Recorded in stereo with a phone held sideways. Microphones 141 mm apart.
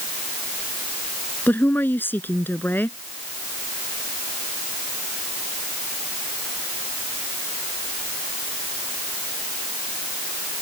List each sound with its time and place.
1.5 s a woman speaking: 15° left (ahead or behind)